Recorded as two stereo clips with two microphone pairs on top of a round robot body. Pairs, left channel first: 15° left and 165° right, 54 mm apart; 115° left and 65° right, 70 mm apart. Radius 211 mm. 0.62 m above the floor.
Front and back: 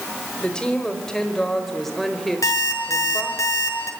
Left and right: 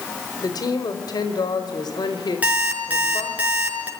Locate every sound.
0.4 s a woman speaking: 90° left, 4 m; by 3.4 s 110° left, 4 m
2.4 s an alarm clock: 5° left, 5 m